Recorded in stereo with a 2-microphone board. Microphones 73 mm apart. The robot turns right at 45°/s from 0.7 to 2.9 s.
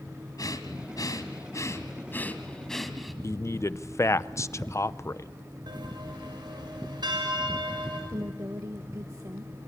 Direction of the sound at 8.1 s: 45° right (ahead or behind).